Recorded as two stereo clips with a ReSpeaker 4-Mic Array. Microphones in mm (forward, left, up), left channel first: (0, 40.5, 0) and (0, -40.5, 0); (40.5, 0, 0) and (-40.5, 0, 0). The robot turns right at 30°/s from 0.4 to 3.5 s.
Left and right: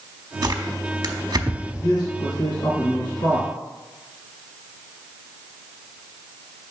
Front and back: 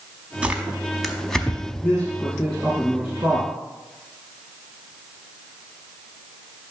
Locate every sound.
0.4 s tearing paper: 110° right, 0.8 m; by 1.9 s 65° right, 0.8 m
1.8 s a man speaking: 75° left, 1.9 m; by 3.5 s 130° left, 1.9 m